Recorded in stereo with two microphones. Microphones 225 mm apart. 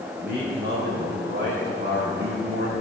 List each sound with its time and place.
0.2 s a man speaking: 45° right (ahead or behind), 3.5 m